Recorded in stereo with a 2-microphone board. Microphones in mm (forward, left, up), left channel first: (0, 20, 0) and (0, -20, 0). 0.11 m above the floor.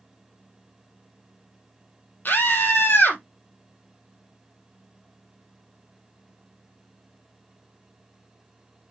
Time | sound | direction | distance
2.2 | a scream | 50° left (ahead or behind) | 3 m